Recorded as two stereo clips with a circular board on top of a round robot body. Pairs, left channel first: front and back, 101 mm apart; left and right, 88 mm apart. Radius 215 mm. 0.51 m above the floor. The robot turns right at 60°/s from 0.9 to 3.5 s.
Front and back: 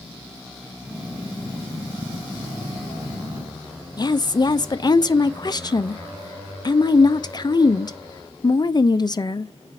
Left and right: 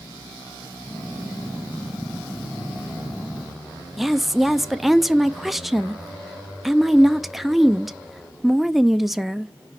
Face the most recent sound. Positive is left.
turn(degrees=-5)